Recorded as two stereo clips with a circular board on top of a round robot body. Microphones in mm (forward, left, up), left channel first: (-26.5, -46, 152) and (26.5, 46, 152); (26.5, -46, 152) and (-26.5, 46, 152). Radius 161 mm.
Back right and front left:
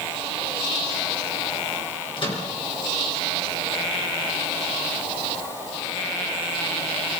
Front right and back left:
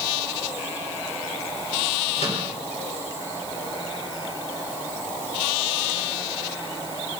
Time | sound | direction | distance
2.2 | a microwave | 80° right | 5 m